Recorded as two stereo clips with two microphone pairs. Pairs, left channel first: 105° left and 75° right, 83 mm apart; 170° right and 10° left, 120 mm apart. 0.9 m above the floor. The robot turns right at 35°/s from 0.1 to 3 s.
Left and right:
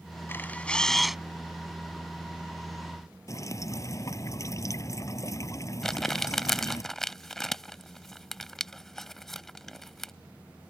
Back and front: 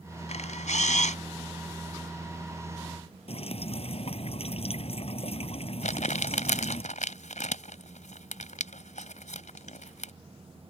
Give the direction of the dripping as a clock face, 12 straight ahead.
7 o'clock.